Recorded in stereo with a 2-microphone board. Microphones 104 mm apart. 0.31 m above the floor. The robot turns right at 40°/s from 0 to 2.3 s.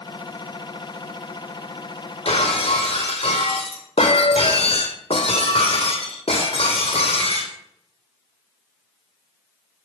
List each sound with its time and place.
2.2 s breaking glass: 70° left (ahead or behind), 1.4 m; by 7.5 s 65° left (ahead or behind), 1.4 m